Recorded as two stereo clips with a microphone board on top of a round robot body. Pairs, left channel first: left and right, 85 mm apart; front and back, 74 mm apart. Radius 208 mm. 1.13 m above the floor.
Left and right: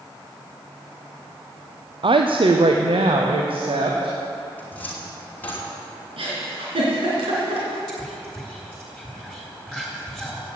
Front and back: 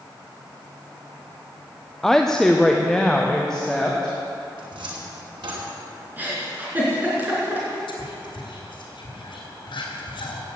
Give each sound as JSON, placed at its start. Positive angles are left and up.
{"t": 2.0, "sound": "a woman speaking", "azimuth_deg": -85, "distance_m": 0.8}
{"t": 4.6, "sound": "a cupboard door", "azimuth_deg": 160, "distance_m": 2.5}
{"t": 6.2, "sound": "a giggle", "azimuth_deg": -110, "distance_m": 4.0}
{"t": 7.9, "sound": "whispering", "azimuth_deg": -5, "distance_m": 3.5}